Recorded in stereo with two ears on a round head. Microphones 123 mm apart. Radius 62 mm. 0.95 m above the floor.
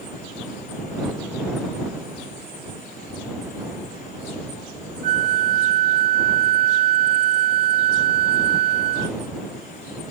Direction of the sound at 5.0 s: 55° right (ahead or behind).